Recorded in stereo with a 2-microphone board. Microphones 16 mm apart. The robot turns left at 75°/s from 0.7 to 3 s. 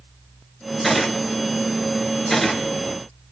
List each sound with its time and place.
0.8 s a gunshot: 15° left (ahead or behind), 1.9 m